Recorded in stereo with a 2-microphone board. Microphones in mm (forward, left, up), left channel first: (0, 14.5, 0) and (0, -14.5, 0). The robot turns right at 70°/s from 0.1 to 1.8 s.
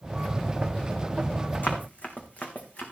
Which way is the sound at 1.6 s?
65° left (ahead or behind).